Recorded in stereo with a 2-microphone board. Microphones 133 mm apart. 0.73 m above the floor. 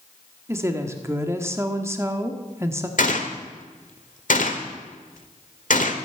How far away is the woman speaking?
About 1.4 m.